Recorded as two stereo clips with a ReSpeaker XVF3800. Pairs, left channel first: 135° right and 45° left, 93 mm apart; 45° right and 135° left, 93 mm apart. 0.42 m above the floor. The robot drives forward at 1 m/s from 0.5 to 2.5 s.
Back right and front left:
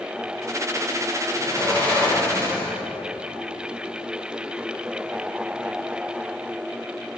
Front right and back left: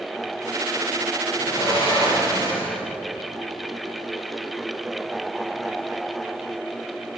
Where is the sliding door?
60° right, 9 m; by 2.8 s 70° right, 9 m.